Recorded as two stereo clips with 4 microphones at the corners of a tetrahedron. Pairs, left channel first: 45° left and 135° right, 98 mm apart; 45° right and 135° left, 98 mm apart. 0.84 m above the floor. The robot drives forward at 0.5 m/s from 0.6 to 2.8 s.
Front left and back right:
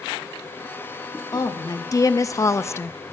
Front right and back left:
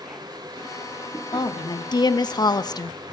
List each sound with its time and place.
1.3 s a woman speaking: 5° right, 1.2 m; by 3.0 s 15° right, 0.5 m